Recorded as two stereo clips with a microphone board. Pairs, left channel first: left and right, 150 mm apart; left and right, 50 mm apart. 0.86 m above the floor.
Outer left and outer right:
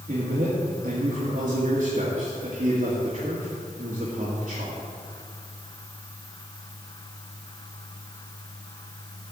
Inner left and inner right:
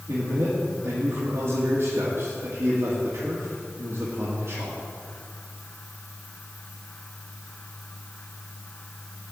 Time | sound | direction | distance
0.1 | a man speaking | 55° right (ahead or behind) | 1.9 m